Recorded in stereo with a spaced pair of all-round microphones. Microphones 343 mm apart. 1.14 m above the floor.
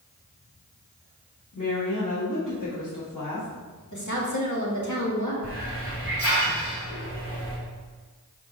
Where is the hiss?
40° left (ahead or behind), 2.5 m.